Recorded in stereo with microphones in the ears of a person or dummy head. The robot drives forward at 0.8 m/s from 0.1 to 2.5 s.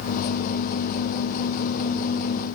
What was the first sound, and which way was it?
Only background noise.